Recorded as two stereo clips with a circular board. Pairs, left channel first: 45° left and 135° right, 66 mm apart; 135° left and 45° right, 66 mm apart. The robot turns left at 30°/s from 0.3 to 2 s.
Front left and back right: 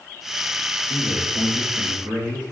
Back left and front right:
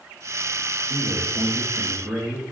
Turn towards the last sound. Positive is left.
turn(degrees=-115)